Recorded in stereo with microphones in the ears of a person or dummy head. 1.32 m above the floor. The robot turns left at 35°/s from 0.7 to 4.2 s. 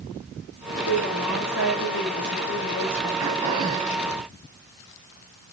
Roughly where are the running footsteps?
No running footsteps in this recording.